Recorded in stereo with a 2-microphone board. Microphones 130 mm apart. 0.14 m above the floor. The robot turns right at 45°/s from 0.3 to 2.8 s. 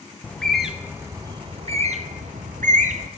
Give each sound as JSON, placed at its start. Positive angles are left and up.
{"t": 0.2, "sound": "a bird", "side_deg": 10, "distance_m": 0.7}